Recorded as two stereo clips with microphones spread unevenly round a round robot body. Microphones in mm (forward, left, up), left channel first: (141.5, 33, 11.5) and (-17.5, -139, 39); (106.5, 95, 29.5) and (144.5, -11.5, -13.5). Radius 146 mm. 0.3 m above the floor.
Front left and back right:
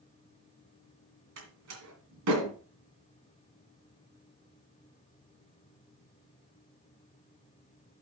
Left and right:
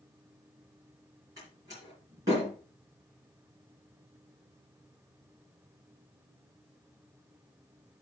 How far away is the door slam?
About 2.5 m.